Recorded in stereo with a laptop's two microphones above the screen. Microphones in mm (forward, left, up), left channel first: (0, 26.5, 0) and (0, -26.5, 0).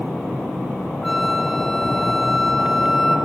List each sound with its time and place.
1.0 s a flute: centre (ahead or behind), 1.4 m